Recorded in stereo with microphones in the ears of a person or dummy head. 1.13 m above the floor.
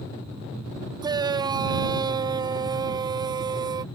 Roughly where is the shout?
Centre.